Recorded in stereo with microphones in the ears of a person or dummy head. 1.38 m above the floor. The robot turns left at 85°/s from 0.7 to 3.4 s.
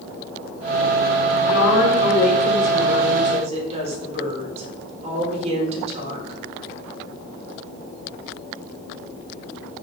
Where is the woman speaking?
130° left, 3 m; by 6.4 s 40° right, 3 m.